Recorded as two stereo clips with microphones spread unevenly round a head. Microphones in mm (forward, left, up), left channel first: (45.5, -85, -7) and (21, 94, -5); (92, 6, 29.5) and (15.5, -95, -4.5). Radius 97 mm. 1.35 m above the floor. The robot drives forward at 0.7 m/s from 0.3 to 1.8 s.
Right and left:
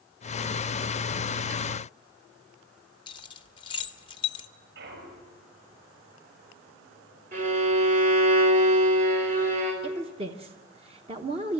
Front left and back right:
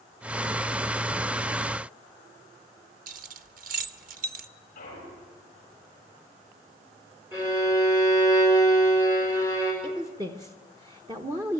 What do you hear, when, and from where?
3.1 s keys jangling: 140° right, 0.7 m
4.8 s a clunk: 75° left, 8 m
7.3 s a violin: 150° left, 5 m
9.8 s a woman speaking: 160° left, 1.0 m